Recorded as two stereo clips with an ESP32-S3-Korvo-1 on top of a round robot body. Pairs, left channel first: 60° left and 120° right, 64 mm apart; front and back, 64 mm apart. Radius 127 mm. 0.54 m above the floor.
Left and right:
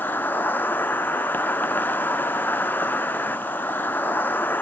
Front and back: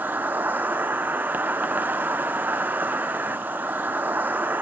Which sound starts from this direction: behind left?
An insect, at 0.0 s.